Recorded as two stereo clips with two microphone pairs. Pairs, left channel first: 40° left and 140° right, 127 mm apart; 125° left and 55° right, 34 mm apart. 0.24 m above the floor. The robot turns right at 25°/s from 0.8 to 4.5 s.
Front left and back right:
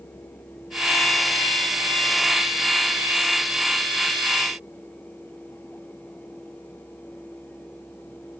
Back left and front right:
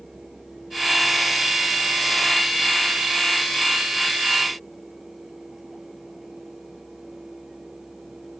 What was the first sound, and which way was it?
Only background noise.